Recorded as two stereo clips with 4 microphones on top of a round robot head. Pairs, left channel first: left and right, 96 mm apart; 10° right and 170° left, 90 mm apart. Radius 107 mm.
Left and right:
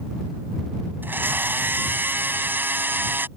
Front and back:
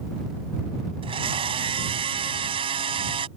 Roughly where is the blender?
Behind.